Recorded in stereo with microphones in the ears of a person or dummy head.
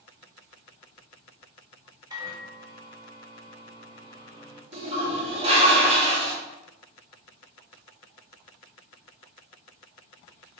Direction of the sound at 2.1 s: 20° right (ahead or behind).